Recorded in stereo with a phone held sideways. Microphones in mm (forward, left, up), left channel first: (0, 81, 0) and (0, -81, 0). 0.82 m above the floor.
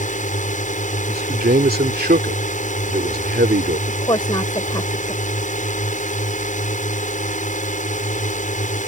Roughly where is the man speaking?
Right.